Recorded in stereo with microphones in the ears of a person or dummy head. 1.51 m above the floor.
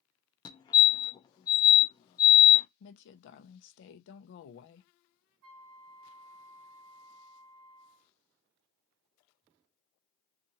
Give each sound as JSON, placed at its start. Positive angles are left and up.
{"t": 0.5, "sound": "a fire alarm", "side_deg": 20, "distance_m": 0.6}
{"t": 2.8, "sound": "a woman speaking", "side_deg": 60, "distance_m": 0.8}
{"t": 5.4, "sound": "a flute", "side_deg": -70, "distance_m": 0.7}